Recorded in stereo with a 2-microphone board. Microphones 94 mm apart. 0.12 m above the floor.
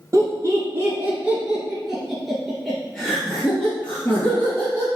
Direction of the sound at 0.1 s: 35° right (ahead or behind).